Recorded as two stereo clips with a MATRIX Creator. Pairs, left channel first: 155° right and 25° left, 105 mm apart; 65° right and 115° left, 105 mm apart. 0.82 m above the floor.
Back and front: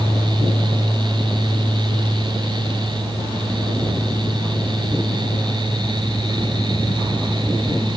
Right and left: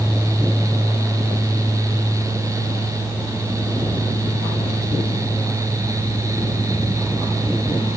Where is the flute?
No flute in this recording.